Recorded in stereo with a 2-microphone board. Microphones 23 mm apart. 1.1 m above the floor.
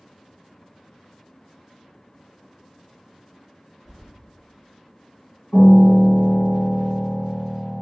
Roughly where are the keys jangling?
Left.